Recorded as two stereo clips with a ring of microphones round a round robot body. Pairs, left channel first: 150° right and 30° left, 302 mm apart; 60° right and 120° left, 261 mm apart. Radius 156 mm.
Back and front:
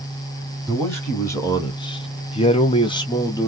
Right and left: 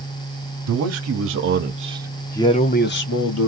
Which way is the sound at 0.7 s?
125° left.